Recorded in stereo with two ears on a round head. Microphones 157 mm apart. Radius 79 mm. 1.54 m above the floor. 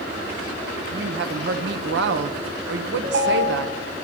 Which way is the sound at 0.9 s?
70° right (ahead or behind).